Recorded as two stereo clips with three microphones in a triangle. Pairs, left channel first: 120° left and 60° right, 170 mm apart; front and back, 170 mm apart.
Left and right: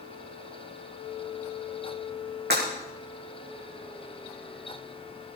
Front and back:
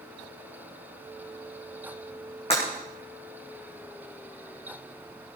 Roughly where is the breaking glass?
Ahead right.